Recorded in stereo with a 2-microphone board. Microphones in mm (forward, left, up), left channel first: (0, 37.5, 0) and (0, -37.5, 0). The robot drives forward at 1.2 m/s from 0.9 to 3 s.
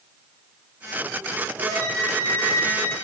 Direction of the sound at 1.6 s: 50° right (ahead or behind).